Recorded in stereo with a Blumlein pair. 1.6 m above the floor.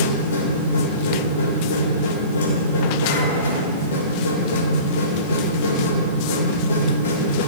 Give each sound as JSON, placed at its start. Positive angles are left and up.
{"t": 0.0, "sound": "a machine running", "azimuth_deg": 60, "distance_m": 2.5}